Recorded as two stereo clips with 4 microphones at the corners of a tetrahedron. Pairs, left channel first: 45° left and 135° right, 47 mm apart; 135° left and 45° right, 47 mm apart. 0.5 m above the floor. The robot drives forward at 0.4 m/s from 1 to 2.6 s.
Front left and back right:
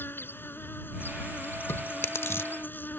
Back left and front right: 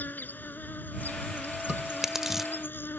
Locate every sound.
0.0 s an insect: 85° left; by 3.0 s 90° left
1.7 s chewing: 30° left; by 2.5 s 40° left